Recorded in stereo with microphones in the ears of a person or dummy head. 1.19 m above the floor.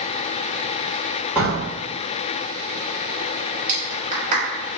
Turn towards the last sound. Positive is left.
turn(degrees=-45)  # may be behind; listen again after turning